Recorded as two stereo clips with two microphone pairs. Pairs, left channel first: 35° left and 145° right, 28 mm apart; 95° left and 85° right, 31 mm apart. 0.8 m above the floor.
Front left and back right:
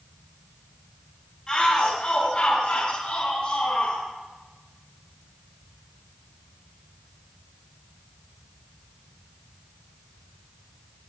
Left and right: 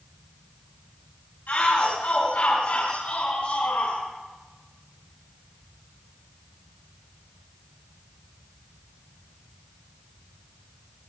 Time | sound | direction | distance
1.5 | a shout | 100° left | 6 m